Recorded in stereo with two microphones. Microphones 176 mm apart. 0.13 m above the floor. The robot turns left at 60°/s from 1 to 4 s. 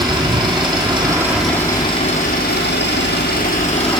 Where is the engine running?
155° right, 1.4 m; by 4.0 s 25° left, 1.4 m.